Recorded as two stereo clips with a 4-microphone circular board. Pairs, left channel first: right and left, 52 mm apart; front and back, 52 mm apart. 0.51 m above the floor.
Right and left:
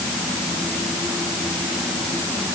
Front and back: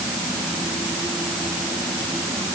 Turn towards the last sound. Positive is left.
No sound to turn to.